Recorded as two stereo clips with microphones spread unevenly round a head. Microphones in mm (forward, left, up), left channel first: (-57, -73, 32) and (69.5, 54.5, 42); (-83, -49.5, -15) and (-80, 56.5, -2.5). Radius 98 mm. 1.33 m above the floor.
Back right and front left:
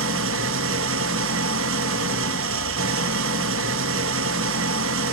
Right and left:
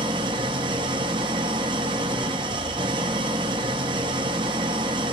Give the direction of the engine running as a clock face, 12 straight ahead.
11 o'clock.